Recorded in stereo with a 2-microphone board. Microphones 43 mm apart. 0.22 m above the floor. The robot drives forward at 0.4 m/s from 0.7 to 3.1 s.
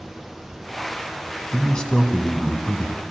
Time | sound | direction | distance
1.5 | a man speaking | 20° left (ahead or behind) | 1.4 m